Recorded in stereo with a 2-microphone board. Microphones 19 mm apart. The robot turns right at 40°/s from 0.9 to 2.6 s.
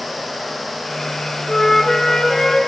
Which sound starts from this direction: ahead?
A flute, at 1.5 s.